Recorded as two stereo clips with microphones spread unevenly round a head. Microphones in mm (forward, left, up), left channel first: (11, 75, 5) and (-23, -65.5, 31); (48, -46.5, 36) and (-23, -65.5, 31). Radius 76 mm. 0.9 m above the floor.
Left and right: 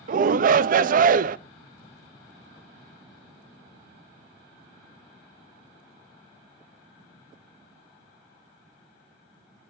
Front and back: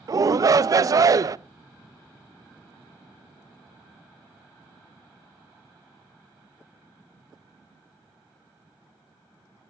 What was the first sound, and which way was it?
A shout, 135° right.